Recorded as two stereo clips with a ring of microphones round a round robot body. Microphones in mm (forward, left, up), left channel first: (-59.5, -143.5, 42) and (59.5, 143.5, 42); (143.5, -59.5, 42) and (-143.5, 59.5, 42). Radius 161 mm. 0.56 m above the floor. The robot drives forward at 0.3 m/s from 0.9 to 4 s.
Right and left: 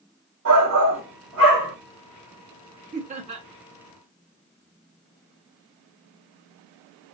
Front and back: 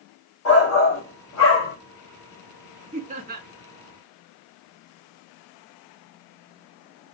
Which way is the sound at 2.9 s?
105° left.